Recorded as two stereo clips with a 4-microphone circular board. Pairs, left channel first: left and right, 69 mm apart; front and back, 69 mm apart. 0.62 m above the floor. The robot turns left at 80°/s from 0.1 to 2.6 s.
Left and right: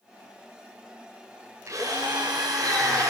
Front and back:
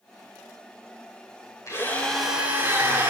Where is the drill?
45° right, 8 m; by 3.1 s 120° right, 8 m.